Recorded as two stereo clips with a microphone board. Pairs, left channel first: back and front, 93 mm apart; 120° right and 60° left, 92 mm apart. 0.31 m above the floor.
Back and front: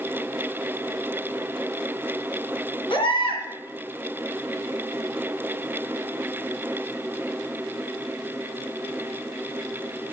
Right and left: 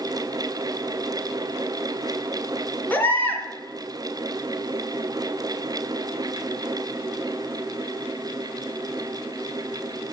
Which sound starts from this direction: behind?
A baby crying, at 2.9 s.